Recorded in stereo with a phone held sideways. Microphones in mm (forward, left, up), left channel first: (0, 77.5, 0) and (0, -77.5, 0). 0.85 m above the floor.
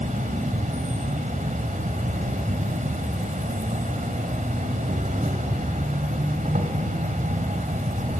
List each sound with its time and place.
0.0 s an insect: 55° right (ahead or behind), 1.8 m